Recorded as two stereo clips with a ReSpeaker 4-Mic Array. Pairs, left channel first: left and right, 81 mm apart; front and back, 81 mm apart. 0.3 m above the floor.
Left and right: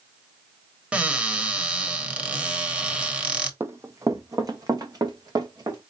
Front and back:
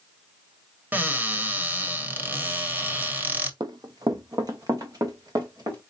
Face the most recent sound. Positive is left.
turn(degrees=-135)